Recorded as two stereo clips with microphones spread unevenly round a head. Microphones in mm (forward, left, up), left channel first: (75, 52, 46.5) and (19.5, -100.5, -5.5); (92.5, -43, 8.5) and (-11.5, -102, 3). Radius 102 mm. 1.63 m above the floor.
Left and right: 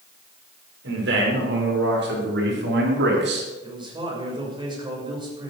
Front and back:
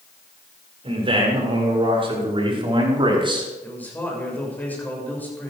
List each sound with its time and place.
0.8 s a man speaking: 110° right, 7 m; by 3.5 s 100° right, 4 m
3.6 s a man speaking: 45° right, 6.5 m